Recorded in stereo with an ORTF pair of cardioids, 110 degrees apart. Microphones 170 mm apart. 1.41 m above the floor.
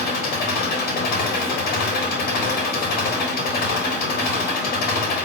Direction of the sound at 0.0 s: 70° left.